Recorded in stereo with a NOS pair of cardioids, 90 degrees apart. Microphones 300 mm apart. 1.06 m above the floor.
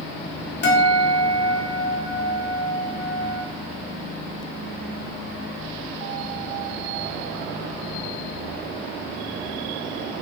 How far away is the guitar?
About 2.5 m.